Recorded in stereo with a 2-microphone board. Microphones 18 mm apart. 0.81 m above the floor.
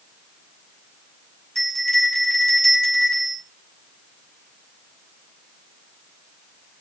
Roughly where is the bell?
Left.